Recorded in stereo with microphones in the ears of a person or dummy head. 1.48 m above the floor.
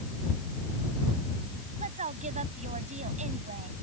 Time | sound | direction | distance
1.8 | a woman speaking | 35° right (ahead or behind) | ?